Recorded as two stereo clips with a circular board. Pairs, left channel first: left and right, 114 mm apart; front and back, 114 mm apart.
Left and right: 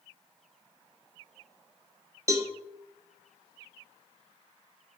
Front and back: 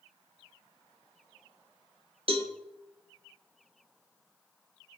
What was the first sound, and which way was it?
A cowbell, 150° right.